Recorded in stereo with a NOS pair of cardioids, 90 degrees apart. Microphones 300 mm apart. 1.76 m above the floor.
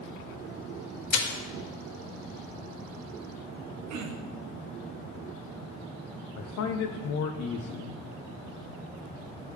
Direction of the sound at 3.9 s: 60° right.